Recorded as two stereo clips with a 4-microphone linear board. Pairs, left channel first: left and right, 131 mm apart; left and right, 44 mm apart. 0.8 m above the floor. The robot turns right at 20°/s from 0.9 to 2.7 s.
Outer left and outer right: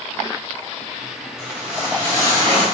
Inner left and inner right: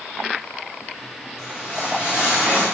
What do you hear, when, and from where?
1.4 s a whoosh: 5° right (ahead or behind), 1.5 m; by 2.6 s 30° right (ahead or behind), 1.5 m